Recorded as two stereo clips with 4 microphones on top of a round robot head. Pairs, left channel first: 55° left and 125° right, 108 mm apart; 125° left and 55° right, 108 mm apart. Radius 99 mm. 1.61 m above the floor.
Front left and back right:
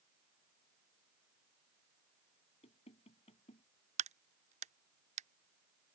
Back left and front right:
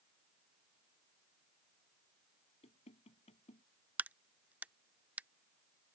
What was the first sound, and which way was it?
Knocking, 90° left.